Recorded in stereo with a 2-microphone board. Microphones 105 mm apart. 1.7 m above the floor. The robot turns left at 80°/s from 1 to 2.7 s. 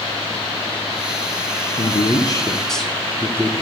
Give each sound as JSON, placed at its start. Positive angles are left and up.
{"t": 1.8, "sound": "a man speaking", "azimuth_deg": 80, "distance_m": 1.2}